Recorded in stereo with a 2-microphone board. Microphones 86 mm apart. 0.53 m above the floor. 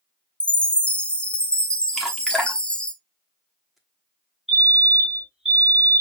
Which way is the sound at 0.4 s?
10° left (ahead or behind).